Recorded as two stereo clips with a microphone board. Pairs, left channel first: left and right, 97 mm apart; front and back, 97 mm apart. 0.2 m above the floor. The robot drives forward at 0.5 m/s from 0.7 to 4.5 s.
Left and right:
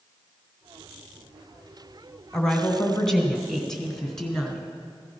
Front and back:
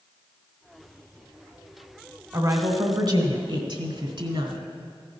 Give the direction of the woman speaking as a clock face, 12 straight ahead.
6 o'clock.